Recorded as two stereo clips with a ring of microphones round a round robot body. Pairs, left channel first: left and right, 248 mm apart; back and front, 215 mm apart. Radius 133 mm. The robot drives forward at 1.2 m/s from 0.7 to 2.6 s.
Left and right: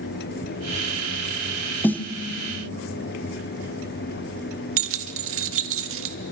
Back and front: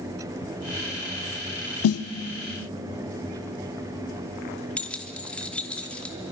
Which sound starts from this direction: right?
Keys jangling, at 4.8 s.